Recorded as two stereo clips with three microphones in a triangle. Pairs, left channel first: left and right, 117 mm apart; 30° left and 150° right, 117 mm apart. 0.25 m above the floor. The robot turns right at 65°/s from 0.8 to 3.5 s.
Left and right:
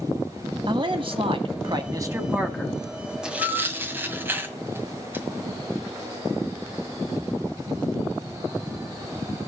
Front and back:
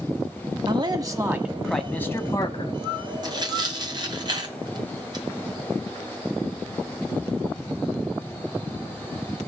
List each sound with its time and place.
0.7 s a man speaking: 120° right, 1.5 m; by 2.8 s 10° left, 1.5 m
3.2 s tearing paper: 170° right, 1.9 m; by 5.2 s 150° right, 1.9 m